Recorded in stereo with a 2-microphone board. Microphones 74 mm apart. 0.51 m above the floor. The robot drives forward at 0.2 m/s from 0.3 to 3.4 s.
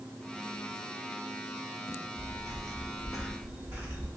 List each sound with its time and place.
1.9 s footsteps: 10° left (ahead or behind), 1.5 m; by 4.1 s 30° right (ahead or behind), 0.9 m